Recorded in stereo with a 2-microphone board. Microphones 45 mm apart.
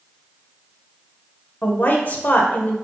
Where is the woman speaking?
45° left (ahead or behind), 1.1 m.